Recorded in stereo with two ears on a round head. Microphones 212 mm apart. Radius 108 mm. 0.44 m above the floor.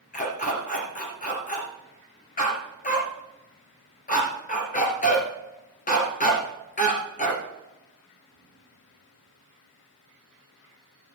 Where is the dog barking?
35° left (ahead or behind), 2.5 m.